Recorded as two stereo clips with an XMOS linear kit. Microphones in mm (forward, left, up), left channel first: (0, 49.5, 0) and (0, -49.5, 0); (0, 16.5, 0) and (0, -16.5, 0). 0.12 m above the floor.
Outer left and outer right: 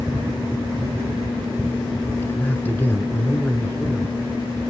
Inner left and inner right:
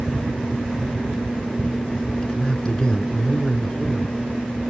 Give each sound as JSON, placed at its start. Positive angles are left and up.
{"t": 2.2, "sound": "a man speaking", "side_deg": 20, "distance_m": 1.1}